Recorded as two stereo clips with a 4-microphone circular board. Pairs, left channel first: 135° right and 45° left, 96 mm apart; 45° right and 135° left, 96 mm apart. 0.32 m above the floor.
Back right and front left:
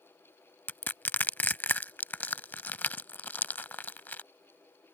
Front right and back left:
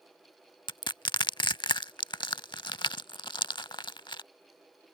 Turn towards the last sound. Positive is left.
turn(degrees=-70)